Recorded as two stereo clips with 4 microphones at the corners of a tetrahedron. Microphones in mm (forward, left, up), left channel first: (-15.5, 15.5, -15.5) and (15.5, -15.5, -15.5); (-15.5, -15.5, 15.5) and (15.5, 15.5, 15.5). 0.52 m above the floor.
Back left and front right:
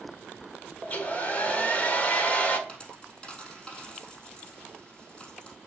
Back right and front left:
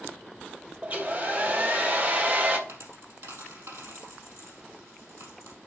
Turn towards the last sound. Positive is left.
turn(degrees=65)